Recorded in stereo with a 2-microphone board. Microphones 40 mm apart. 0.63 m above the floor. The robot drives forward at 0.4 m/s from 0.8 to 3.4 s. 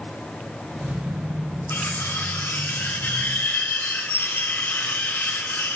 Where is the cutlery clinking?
85° left, 4.5 m.